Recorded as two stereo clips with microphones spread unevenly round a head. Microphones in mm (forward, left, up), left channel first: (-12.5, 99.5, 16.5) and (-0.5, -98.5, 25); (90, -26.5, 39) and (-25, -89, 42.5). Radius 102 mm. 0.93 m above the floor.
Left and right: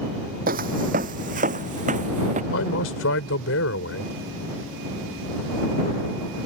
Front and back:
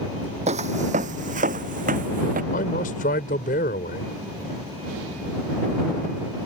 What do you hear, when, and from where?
0.5 s footsteps: 125° right; by 2.4 s 140° right
2.5 s a man speaking: 70° left